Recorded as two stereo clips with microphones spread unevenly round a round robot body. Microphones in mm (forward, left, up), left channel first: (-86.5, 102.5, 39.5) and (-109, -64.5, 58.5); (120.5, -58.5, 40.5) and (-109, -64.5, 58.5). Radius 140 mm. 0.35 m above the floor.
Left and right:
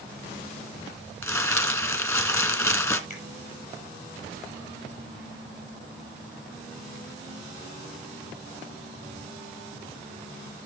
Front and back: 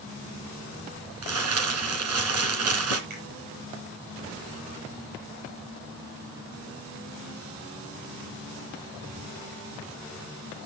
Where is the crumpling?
155° left, 2.5 m.